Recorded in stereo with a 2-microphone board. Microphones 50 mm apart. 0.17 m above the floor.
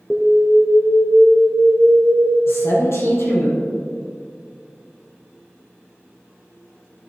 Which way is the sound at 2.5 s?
65° left (ahead or behind).